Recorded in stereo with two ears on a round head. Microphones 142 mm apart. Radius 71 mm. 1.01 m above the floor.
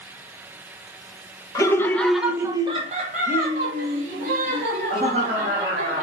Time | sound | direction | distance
1.6 | laughter | 20° left (ahead or behind) | 0.7 m